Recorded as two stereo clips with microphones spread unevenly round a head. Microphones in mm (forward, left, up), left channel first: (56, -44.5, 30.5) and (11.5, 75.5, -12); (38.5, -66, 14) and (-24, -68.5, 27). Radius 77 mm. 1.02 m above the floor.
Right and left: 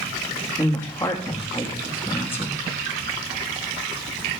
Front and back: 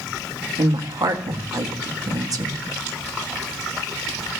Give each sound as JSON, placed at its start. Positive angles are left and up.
{"t": 0.6, "sound": "a woman speaking", "azimuth_deg": -150, "distance_m": 1.4}